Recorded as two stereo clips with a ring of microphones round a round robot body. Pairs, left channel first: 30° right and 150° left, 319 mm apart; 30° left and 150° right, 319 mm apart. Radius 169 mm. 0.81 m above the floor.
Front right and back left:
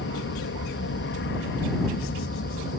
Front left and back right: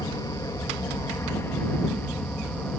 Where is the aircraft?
40° right; by 2.8 s 55° right.